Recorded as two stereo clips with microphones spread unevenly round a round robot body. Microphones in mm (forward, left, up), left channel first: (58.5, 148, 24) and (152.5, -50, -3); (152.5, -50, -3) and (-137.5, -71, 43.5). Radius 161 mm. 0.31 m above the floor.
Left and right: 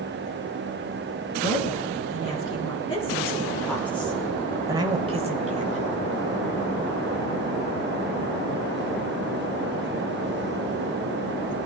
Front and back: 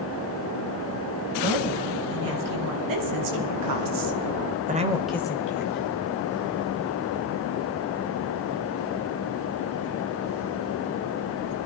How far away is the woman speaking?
About 4 m.